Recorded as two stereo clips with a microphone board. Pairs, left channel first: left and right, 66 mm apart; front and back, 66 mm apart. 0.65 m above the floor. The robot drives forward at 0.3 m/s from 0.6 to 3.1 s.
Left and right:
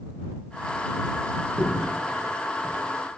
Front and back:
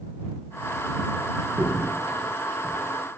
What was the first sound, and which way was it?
A crack, 175° left.